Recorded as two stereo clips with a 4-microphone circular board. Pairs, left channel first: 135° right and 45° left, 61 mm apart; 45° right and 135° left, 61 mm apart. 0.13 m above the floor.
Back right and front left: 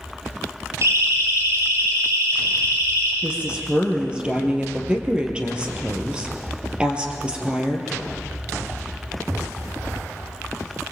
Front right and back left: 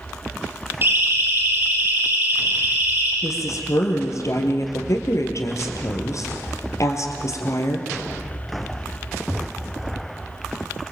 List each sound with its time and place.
0.8 s a siren: 80° left, 6 m; by 3.1 s 70° left, 6.5 m
3.2 s a woman speaking: 25° right, 3.5 m